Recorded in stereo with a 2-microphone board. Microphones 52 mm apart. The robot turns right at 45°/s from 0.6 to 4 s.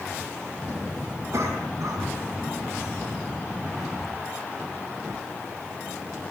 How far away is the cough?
About 5.5 m.